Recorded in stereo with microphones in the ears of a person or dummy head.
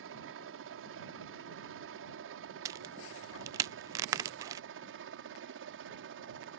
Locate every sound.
0.0 s a helicopter: 65° right (ahead or behind)
2.6 s a crack: 20° right (ahead or behind)